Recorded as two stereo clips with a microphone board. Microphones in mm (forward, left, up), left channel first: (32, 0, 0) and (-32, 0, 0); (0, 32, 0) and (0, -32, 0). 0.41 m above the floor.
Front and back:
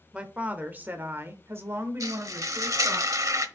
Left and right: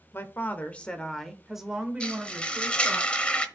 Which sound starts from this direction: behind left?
A woman speaking, at 0.1 s.